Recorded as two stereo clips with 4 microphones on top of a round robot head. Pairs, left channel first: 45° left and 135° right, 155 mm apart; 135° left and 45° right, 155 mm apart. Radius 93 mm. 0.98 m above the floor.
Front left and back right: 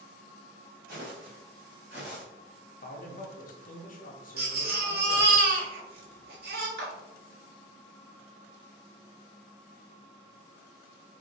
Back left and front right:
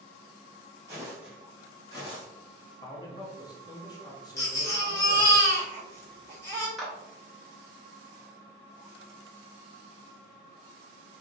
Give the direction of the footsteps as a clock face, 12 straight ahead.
4 o'clock.